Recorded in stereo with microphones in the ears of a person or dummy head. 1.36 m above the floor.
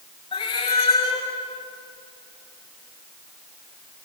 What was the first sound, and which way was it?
A cat meowing, 25° left (ahead or behind).